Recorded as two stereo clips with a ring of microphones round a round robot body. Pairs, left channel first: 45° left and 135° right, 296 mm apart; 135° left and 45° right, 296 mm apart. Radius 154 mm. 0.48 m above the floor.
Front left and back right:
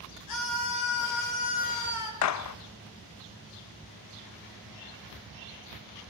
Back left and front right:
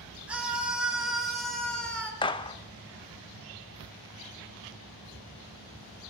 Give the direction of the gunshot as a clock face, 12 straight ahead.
10 o'clock.